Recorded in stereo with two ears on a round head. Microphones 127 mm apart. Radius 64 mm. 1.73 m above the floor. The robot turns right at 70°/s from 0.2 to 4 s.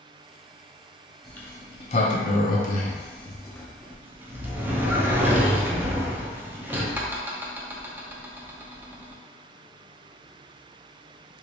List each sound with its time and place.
1.2 s a sliding door: centre (ahead or behind), 0.5 m; by 9.2 s 15° right (ahead or behind), 0.5 m